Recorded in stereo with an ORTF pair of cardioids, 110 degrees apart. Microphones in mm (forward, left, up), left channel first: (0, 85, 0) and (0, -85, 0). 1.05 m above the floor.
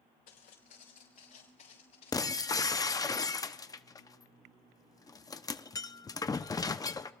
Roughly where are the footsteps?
Ahead left.